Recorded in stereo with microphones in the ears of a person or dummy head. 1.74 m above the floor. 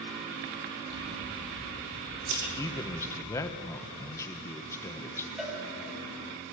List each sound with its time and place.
0.9 s scissors: 60° right (ahead or behind), 5.5 m
2.6 s a man speaking: 20° left (ahead or behind), 1.4 m
5.4 s a cowbell: 5° right (ahead or behind), 5.5 m